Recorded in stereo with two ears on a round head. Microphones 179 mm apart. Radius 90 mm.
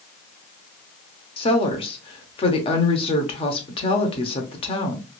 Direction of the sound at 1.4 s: 30° left (ahead or behind).